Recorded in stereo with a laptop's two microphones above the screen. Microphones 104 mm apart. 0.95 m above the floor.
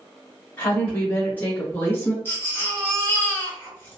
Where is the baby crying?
20° left (ahead or behind), 1.0 m.